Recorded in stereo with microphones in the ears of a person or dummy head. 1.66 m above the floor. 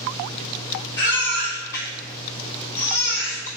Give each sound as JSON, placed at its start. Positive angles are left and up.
{"t": 1.0, "sound": "a baby crying", "side_deg": 15, "distance_m": 1.5}